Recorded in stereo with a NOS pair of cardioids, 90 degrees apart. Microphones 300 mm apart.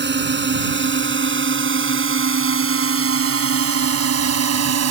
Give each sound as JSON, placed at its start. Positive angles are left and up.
{"t": 0.0, "sound": "a drone", "azimuth_deg": -35}